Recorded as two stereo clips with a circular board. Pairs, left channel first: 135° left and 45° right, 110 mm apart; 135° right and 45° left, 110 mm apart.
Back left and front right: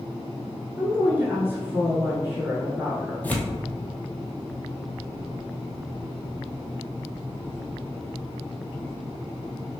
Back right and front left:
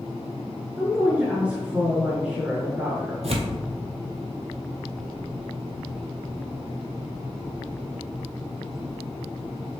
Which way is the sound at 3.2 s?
60° left.